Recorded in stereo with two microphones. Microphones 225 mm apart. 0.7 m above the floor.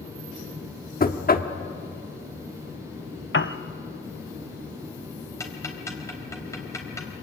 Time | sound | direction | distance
1.0 | knocking | 40° left (ahead or behind) | 1.2 m
3.3 | a piano | 60° left (ahead or behind) | 0.9 m
5.4 | ticking | 15° left (ahead or behind) | 3.5 m